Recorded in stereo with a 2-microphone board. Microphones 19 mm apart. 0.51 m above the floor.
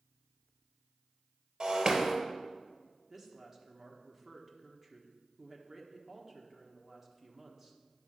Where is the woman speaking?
20° right (ahead or behind), 1.3 m.